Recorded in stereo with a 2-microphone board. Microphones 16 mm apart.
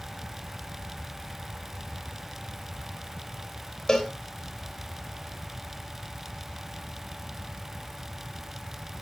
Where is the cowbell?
30° left (ahead or behind), 2.5 m.